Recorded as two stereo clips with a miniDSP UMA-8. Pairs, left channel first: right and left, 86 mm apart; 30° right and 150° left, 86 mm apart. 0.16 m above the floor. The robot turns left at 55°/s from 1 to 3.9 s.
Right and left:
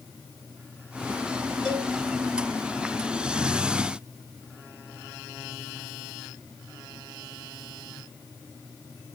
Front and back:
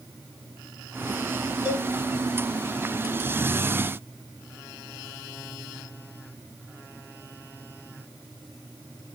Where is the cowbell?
170° left, 1.5 m; by 1.9 s 155° left, 1.5 m.